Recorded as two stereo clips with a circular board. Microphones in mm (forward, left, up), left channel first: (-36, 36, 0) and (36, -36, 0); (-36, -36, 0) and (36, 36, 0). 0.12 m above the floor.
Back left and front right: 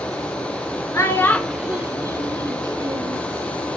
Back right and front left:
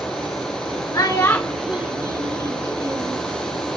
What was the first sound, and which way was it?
A child speaking, 175° right.